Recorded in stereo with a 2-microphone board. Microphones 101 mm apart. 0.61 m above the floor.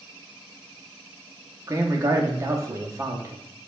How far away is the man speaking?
About 0.7 m.